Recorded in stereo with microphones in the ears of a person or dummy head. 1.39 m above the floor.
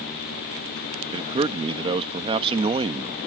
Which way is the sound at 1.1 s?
30° right (ahead or behind).